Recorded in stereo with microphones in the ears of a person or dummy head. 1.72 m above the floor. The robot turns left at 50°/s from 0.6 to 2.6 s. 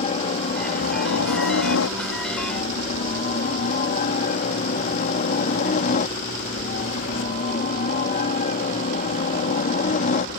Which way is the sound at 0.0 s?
145° left.